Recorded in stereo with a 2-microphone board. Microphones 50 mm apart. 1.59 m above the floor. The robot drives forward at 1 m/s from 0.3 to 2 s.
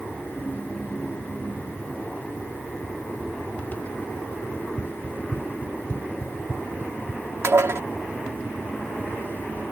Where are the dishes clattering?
65° right (ahead or behind).